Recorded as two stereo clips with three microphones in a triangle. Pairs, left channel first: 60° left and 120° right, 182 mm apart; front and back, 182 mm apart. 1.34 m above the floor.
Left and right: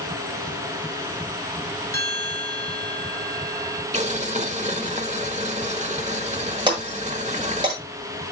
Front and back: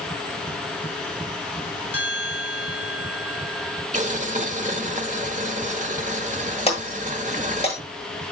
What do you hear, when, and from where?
1.9 s a bell: 15° right, 4.5 m
3.9 s boiling: 150° right, 1.4 m
6.7 s breaking glass: 55° right, 8.5 m